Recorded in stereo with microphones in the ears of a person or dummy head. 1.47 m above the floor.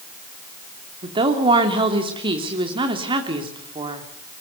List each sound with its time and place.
1.0 s a woman speaking: 35° right (ahead or behind), 3 m